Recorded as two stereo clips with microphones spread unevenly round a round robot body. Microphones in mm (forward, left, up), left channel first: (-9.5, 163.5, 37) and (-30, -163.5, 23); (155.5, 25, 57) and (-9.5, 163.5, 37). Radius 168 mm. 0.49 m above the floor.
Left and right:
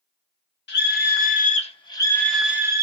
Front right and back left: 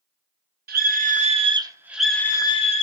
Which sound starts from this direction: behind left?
A scream, at 0.7 s.